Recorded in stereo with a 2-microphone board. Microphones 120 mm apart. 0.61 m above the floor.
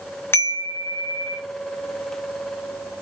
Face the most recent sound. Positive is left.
turn(degrees=20)  # may be behind; listen again after turning